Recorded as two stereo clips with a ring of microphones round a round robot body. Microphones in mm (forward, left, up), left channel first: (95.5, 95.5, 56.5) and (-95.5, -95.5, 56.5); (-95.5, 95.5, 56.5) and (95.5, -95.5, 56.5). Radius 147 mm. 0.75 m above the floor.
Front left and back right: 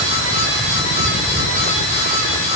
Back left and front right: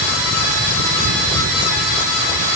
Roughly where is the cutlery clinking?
I don't hear cutlery clinking.